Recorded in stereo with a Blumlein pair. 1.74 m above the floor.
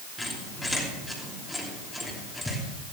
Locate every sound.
0.2 s a squeak: 5° left, 3 m